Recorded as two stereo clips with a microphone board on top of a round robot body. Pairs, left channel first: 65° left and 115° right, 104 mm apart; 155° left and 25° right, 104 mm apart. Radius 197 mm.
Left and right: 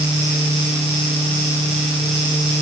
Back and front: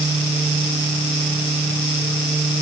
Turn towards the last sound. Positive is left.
No sound to turn to.